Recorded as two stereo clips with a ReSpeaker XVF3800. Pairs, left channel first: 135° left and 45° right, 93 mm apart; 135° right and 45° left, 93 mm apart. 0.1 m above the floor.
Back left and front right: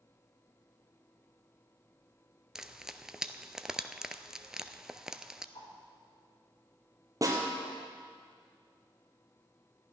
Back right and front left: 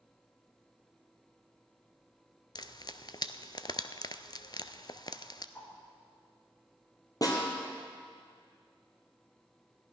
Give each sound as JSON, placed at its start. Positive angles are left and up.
{"t": 2.5, "sound": "frying", "azimuth_deg": -125, "distance_m": 0.5}
{"t": 5.5, "sound": "a whoosh", "azimuth_deg": 155, "distance_m": 3.5}
{"t": 7.2, "sound": "a snare drum", "azimuth_deg": -95, "distance_m": 2.5}